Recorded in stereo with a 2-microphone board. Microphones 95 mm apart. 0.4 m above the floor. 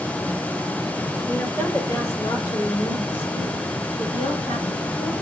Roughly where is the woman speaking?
Centre.